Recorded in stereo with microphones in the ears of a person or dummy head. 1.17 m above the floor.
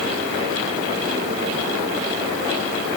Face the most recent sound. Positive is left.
No sound to turn to.